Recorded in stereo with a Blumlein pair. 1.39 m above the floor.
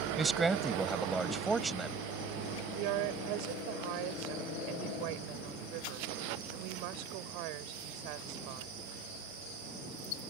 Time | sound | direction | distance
0.2 | a man speaking | 10° right | ?
2.8 | a woman speaking | 45° right | ?